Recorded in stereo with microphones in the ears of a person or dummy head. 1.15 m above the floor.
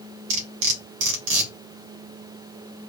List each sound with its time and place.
0.3 s cutlery clinking: 65° right (ahead or behind), 1.0 m